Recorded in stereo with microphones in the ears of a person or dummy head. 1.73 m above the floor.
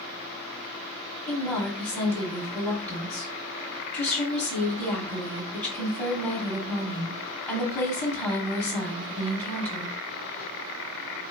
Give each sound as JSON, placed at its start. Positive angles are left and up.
{"t": 1.3, "sound": "a woman speaking", "side_deg": 5, "distance_m": 1.0}